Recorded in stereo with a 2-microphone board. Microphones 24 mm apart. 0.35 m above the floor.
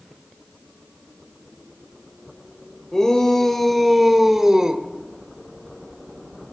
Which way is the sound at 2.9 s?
25° left (ahead or behind).